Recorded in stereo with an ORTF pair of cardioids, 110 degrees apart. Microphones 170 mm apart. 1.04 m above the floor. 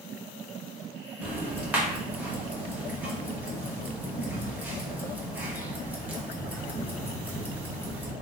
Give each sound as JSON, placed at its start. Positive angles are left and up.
{"t": 1.2, "sound": "ticking", "azimuth_deg": -10, "distance_m": 0.9}